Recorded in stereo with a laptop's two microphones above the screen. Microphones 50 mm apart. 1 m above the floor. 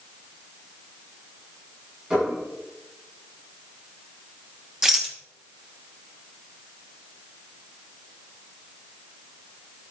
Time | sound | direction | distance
2.1 | dishes clattering | 25° right (ahead or behind) | 7 m
4.8 | a rattle | 15° right (ahead or behind) | 1.3 m